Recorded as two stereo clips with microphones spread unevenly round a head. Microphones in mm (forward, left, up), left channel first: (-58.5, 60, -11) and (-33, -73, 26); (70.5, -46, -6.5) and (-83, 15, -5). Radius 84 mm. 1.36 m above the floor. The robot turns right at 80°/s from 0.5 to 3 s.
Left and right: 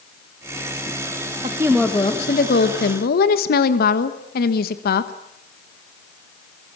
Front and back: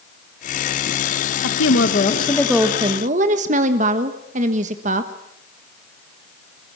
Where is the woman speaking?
15° right, 1.3 m; by 5.1 s 110° left, 1.3 m.